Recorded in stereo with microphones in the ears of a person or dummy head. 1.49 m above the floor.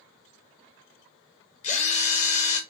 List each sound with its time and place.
1.6 s a drill: 40° left (ahead or behind), 1.2 m